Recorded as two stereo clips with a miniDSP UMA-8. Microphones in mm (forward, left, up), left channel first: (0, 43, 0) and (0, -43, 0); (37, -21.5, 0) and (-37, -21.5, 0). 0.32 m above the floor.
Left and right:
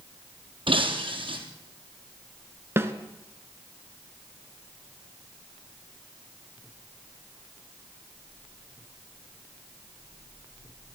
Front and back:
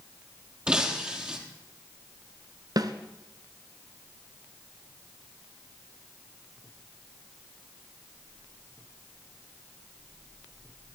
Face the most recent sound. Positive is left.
turn(degrees=-150)